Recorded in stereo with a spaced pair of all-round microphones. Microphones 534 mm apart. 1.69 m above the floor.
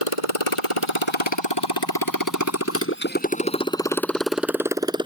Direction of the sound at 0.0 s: 75° left (ahead or behind).